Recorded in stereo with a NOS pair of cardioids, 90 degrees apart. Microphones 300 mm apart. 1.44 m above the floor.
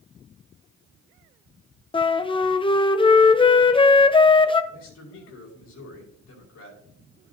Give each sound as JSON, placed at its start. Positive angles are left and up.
{"t": 1.9, "sound": "a flute", "azimuth_deg": 15, "distance_m": 0.7}
{"t": 4.7, "sound": "a man speaking", "azimuth_deg": 65, "distance_m": 5.0}